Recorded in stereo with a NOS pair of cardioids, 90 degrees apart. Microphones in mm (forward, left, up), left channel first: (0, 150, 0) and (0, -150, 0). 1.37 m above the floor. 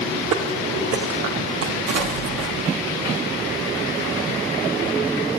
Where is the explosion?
60° right, 1.4 m.